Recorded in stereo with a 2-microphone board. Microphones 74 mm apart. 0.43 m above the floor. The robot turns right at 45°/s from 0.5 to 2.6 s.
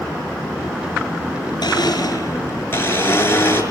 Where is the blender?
105° left, 5 m; by 3.6 s 150° left, 5 m.